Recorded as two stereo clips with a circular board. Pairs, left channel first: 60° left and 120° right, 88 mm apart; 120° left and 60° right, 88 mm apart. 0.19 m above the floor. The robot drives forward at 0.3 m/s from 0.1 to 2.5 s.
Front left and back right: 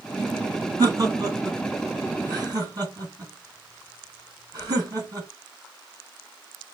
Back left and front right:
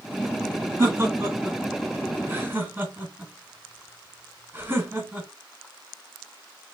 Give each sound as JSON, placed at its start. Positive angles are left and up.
{"t": 0.8, "sound": "laughter", "azimuth_deg": -100, "distance_m": 2.0}